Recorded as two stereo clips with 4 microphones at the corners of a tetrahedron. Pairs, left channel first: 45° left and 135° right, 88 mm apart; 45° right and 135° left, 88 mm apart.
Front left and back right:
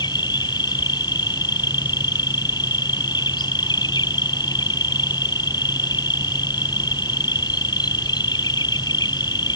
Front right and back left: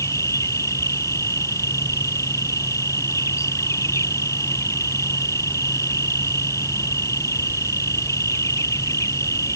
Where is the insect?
10° left.